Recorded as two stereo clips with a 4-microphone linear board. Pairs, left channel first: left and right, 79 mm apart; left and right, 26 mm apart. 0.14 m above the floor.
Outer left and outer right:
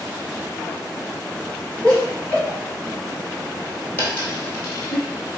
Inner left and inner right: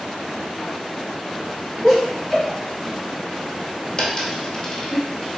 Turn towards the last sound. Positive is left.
turn(degrees=30)  # may be behind; listen again after turning